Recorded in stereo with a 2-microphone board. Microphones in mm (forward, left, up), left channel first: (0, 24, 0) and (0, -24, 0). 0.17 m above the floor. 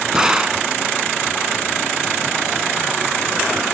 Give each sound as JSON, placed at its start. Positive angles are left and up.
{"t": 0.1, "sound": "a gunshot", "side_deg": -15}